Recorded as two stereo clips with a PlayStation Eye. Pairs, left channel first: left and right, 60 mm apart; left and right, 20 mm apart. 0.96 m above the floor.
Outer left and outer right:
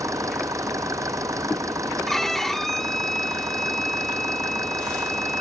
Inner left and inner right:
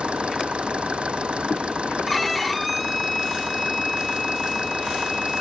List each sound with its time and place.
0.0 s an engine running: 60° right (ahead or behind)
2.1 s a violin: 5° left (ahead or behind)